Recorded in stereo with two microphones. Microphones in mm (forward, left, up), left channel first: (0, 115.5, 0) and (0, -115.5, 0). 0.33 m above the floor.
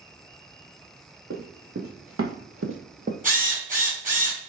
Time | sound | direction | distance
1.3 | running footsteps | 60° right (ahead or behind) | 1.5 m
3.2 | a drill | 35° right (ahead or behind) | 2.5 m